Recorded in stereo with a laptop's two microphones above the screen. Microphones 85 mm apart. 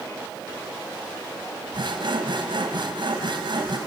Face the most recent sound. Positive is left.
turn(degrees=-65)  # may be behind; listen again after turning